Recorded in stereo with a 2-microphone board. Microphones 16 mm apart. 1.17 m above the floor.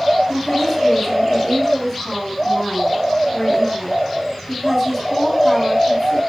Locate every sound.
0.3 s a woman speaking: 10° left (ahead or behind), 7.5 m